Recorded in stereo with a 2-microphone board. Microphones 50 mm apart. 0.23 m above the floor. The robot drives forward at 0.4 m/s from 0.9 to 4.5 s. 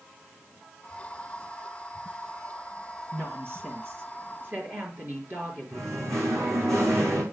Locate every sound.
3.1 s a woman speaking: 50° right (ahead or behind), 3.5 m; by 6.7 s 45° right (ahead or behind), 4 m
5.7 s singing: 75° right (ahead or behind), 6 m